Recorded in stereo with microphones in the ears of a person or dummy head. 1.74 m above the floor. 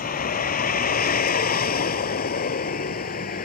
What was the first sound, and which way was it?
A vehicle, 45° left (ahead or behind).